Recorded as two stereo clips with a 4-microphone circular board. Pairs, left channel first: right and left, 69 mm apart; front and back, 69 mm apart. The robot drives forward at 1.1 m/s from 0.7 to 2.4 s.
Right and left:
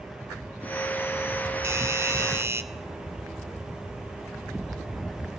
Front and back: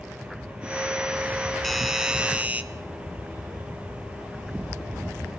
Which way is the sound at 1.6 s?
85° left.